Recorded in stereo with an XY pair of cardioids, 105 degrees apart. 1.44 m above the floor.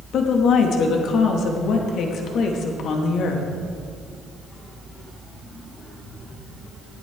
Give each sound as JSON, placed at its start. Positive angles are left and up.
{"t": 0.1, "sound": "a woman speaking", "azimuth_deg": 70, "distance_m": 2.0}